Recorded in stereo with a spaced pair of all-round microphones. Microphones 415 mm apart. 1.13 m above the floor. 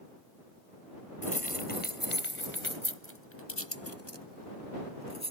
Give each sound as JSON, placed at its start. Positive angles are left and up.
{"t": 1.2, "sound": "keys jangling", "side_deg": 20}